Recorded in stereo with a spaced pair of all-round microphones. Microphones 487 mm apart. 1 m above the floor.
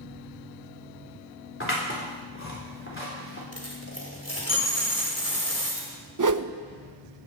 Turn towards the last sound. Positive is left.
turn(degrees=-40)  # may be behind; listen again after turning